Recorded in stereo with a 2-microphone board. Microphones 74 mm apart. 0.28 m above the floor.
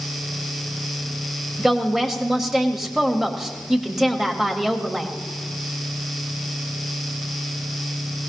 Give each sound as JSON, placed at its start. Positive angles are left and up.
{"t": 1.6, "sound": "a woman speaking", "side_deg": -5, "distance_m": 1.1}